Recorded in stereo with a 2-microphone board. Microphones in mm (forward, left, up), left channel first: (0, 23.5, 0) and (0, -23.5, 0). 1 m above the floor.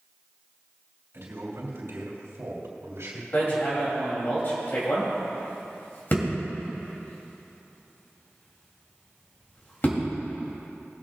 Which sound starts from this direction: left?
Hammering, at 3.3 s.